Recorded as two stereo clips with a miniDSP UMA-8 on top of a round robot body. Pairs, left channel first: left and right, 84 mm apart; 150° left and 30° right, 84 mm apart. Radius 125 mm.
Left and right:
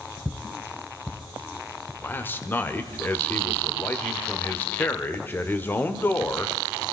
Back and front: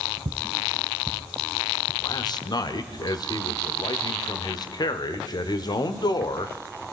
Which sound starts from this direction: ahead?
Footsteps, at 0.2 s.